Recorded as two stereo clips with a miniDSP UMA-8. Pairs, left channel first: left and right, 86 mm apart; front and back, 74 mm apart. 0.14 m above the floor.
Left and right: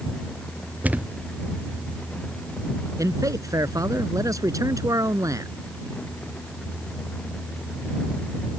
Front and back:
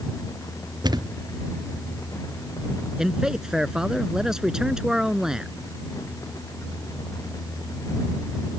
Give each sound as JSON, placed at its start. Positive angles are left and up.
{"t": 0.8, "sound": "a thud", "azimuth_deg": -160}
{"t": 3.0, "sound": "a man speaking", "azimuth_deg": -100}